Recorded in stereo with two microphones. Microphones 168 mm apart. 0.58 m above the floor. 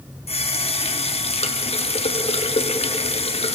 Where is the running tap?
35° left (ahead or behind), 0.7 m.